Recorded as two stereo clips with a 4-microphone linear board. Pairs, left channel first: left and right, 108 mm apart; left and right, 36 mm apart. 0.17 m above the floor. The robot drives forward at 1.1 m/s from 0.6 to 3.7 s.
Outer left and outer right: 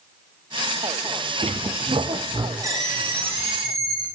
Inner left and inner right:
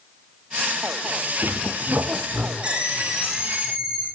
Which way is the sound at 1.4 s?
80° right.